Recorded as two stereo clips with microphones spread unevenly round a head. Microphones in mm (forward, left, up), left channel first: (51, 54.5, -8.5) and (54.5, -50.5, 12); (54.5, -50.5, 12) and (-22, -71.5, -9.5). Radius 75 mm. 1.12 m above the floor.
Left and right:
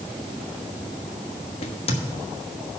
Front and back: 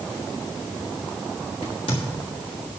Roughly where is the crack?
Ahead left.